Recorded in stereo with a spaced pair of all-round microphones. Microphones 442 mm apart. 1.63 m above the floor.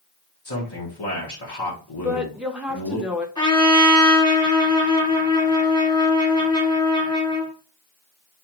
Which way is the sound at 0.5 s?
60° left (ahead or behind).